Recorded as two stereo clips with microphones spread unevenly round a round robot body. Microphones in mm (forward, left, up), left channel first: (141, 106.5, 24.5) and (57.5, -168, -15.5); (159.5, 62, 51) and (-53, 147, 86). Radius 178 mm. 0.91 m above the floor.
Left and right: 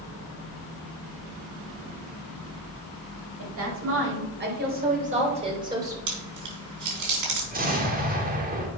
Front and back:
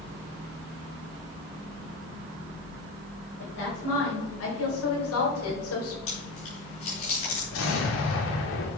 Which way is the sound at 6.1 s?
90° right.